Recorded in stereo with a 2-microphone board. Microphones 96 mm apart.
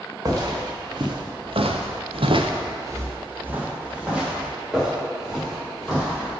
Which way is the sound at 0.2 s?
35° right (ahead or behind).